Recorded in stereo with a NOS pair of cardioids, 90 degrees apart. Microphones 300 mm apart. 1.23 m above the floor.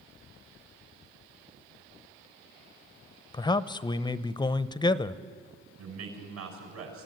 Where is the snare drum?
No snare drum in this recording.